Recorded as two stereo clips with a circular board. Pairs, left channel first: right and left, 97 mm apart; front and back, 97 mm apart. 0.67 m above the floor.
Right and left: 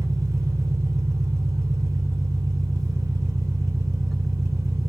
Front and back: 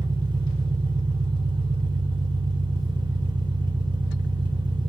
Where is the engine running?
145° left, 2.5 m.